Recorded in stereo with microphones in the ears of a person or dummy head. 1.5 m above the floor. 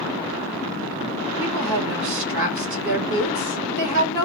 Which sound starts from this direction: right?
A woman speaking, at 1.4 s.